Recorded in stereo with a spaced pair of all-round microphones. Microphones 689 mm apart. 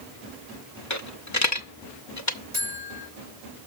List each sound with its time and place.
0.9 s a dropped coin: 25° left (ahead or behind), 0.8 m
2.5 s a buzzer: 70° right (ahead or behind), 2.5 m